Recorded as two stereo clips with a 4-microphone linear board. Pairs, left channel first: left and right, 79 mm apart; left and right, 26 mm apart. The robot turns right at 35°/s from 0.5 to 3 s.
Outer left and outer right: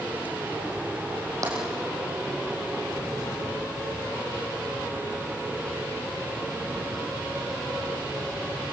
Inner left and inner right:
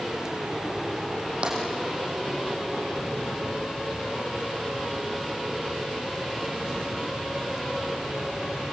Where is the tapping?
45° right (ahead or behind), 7 m; by 1.6 s 50° right (ahead or behind), 7 m.